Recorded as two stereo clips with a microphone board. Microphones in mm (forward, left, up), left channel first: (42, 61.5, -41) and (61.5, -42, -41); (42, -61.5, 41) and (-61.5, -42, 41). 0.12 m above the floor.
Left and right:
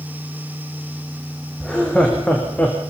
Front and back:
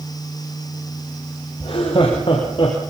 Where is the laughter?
15° left, 3.5 m; by 2.8 s 25° left, 4 m.